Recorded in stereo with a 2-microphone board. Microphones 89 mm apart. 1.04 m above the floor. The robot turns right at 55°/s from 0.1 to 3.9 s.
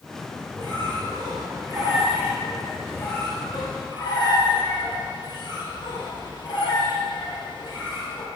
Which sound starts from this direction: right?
A squeak, at 0.6 s.